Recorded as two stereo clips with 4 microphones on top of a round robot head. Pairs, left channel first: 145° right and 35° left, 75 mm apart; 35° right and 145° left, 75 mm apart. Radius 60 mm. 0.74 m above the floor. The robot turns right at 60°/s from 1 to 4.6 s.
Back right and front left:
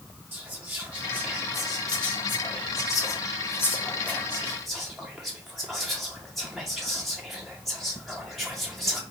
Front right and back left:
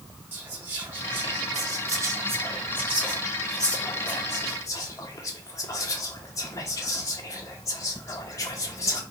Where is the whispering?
90° left, 0.7 m; by 9.0 s 50° right, 0.7 m.